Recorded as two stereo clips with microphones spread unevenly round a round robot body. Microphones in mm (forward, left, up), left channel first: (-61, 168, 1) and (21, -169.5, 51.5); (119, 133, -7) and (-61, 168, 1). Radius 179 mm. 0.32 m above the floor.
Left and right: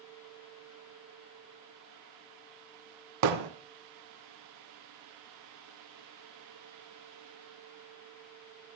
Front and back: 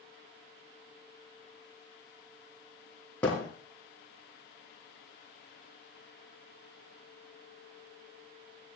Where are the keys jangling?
No keys jangling in this recording.